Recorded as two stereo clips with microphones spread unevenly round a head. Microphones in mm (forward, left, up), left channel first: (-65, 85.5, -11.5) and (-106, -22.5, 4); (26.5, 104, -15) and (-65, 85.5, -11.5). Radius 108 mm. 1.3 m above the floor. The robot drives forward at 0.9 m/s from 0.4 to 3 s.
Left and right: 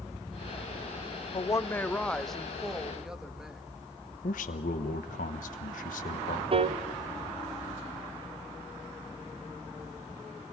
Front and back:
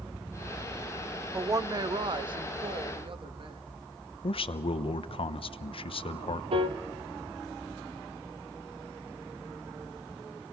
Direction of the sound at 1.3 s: 120° left.